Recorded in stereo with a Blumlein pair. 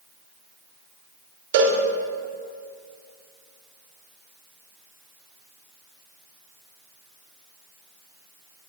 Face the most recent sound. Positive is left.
turn(degrees=-55)